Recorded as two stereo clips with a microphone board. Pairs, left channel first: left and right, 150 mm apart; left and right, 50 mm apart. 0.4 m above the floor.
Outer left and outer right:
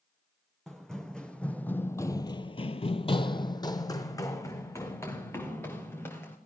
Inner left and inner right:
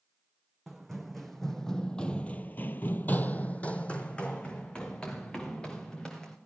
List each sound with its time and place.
0.7 s running footsteps: 5° left (ahead or behind), 1.6 m; by 6.4 s 15° left (ahead or behind), 3 m